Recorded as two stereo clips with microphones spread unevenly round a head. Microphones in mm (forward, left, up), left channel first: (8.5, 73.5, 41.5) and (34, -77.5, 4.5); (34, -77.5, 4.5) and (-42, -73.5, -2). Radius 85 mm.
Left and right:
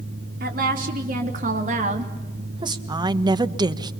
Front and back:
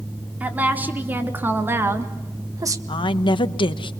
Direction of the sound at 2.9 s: 15° right.